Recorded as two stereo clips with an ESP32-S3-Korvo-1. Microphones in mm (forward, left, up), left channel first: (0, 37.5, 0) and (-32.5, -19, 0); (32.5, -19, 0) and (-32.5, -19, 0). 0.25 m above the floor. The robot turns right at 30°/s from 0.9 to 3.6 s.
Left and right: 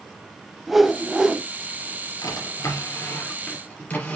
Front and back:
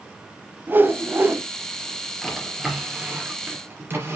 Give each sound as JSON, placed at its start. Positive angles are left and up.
{"t": 0.7, "sound": "a whoosh", "azimuth_deg": 155, "distance_m": 0.9}
{"t": 2.2, "sound": "a drawer", "azimuth_deg": 85, "distance_m": 3.0}